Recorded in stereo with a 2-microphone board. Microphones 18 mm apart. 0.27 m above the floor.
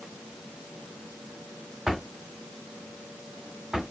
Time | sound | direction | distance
1.9 | a drawer | 35° right (ahead or behind) | 1.0 m